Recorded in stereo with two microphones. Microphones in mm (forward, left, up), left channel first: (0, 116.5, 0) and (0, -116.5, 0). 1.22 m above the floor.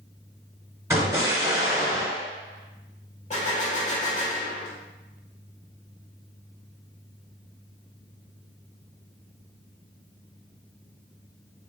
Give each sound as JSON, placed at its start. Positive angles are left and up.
{"t": 0.9, "sound": "an explosion", "side_deg": -10, "distance_m": 1.2}
{"t": 3.3, "sound": "a gunshot", "side_deg": 30, "distance_m": 1.5}